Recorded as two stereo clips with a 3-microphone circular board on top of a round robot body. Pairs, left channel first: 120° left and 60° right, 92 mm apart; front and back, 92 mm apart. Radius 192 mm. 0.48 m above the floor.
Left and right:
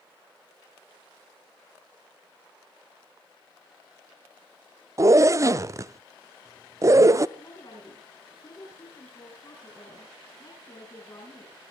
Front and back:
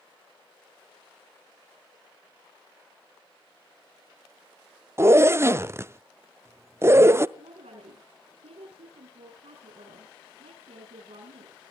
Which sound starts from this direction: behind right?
A zipper, at 5.0 s.